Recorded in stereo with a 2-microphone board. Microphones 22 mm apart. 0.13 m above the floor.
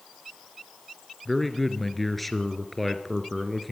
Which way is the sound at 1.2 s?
5° left (ahead or behind).